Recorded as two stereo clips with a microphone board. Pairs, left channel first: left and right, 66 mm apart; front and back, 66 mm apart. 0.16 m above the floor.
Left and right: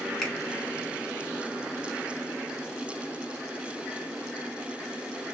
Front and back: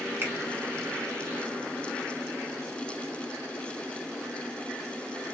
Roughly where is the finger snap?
Behind.